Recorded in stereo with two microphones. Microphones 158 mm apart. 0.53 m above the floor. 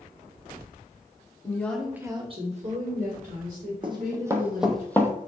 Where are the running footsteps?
35° right (ahead or behind), 1.1 m; by 5.1 s 20° left (ahead or behind), 0.9 m.